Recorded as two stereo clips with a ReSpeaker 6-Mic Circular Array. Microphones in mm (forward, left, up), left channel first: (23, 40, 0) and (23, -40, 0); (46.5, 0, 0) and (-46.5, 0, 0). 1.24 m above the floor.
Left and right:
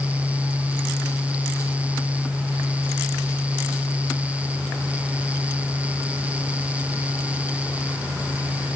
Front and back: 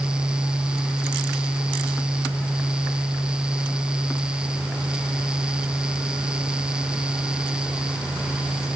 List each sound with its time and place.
Only background noise.